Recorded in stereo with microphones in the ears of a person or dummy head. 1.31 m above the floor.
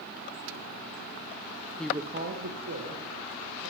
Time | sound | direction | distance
1.8 | a woman speaking | 5° left (ahead or behind) | 0.5 m